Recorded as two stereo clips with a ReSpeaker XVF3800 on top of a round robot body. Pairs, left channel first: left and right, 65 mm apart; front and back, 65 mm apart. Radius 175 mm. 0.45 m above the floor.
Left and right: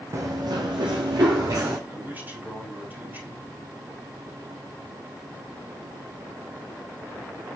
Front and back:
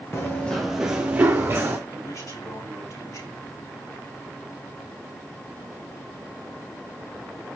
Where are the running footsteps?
45° right, 0.7 m; by 1.8 s 125° right, 1.6 m.